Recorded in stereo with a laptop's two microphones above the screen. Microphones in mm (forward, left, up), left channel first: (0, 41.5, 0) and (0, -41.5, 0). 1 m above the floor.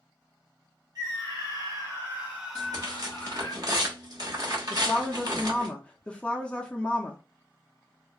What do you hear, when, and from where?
0.9 s a scream: 55° right (ahead or behind), 1.1 m; by 3.5 s 35° left (ahead or behind), 0.8 m
2.5 s tearing paper: 50° right (ahead or behind), 1.1 m
4.7 s a woman speaking: 15° left (ahead or behind), 0.6 m